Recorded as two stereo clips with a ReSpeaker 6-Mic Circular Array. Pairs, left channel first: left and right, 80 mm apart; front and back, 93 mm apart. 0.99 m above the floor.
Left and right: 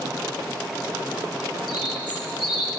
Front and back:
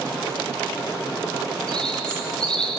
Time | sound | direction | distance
1.7 | a bird | 80° left | 1.5 m